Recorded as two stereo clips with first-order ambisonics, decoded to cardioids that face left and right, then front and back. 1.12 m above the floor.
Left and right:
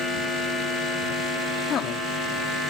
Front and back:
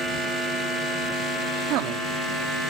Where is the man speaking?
150° left.